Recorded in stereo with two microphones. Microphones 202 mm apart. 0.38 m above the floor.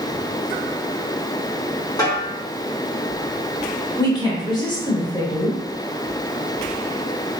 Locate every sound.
2.0 s a snare drum: 20° left (ahead or behind), 1.1 m
4.0 s a woman speaking: 20° left (ahead or behind), 0.9 m